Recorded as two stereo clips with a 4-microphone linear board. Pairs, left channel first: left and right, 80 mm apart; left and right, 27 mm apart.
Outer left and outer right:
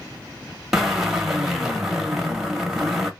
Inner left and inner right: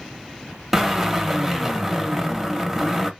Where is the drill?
5° right (ahead or behind), 1.0 m.